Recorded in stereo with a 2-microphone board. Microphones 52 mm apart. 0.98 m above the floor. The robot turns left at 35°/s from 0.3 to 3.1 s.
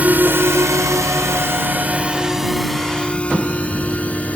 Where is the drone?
35° right (ahead or behind); by 4.4 s 30° left (ahead or behind).